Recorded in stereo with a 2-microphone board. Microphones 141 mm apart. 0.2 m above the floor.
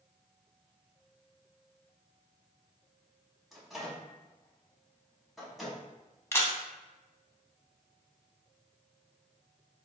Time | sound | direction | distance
3.5 | a microwave | centre (ahead or behind) | 0.9 m
6.3 | a camera shutter | 20° left (ahead or behind) | 0.6 m